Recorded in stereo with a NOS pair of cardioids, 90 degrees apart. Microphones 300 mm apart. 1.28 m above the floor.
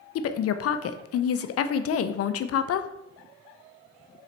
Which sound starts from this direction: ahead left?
A woman speaking, at 0.1 s.